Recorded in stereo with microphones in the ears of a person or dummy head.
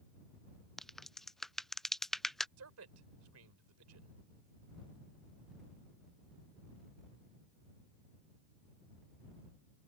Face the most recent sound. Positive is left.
turn(degrees=-80)